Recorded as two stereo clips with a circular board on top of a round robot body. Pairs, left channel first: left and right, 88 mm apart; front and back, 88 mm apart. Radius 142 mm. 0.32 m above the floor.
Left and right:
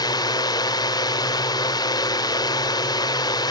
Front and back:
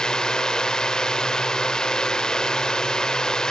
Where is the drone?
80° left.